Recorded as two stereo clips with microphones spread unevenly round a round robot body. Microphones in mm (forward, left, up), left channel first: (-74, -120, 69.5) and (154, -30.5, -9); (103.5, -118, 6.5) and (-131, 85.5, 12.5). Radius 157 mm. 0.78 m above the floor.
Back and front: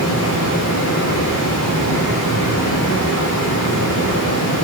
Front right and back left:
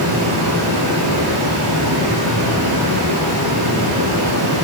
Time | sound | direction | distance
0.0 | running water | 175° left | 1.9 m